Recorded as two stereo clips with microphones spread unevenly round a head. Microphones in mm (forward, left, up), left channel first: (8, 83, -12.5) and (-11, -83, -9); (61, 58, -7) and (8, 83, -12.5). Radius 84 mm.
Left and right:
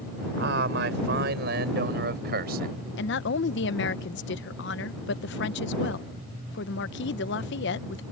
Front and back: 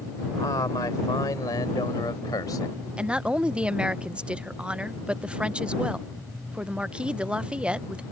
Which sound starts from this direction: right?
A man speaking, at 0.4 s.